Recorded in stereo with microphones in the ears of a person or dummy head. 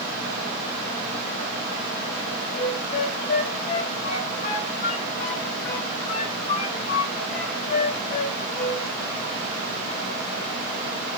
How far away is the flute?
About 1.6 m.